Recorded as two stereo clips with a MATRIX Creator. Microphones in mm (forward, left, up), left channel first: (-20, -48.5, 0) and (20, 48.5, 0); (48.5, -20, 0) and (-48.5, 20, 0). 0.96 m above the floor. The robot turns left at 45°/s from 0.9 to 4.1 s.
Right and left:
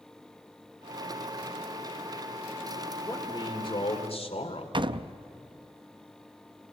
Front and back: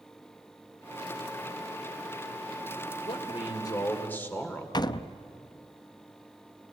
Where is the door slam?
25° left, 0.6 m.